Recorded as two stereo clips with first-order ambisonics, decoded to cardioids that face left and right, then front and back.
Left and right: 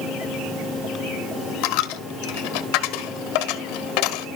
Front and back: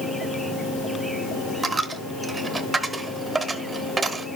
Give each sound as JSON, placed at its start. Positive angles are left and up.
{"t": 1.6, "sound": "a dropped coin", "azimuth_deg": 105, "distance_m": 0.8}